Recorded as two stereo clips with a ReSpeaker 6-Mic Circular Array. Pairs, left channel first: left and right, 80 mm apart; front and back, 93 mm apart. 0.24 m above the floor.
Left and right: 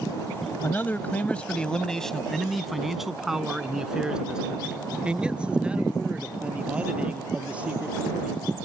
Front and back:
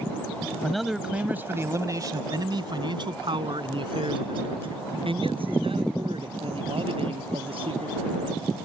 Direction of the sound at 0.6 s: 80° left.